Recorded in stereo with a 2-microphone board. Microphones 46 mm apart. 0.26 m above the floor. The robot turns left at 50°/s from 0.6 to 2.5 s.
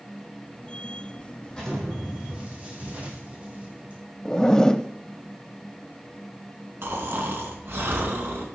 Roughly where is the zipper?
Centre.